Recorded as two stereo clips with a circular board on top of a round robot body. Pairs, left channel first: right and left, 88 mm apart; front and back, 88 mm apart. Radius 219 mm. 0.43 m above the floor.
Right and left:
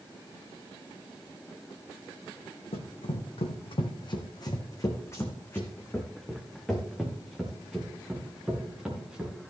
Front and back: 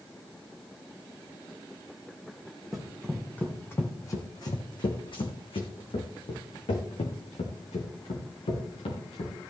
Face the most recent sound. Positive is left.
turn(degrees=10)